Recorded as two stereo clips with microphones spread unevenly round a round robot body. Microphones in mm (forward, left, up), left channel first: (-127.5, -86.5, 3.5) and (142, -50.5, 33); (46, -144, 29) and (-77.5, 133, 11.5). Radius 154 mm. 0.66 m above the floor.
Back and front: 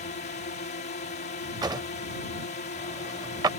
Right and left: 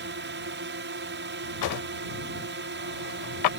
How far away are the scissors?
No scissors in this recording.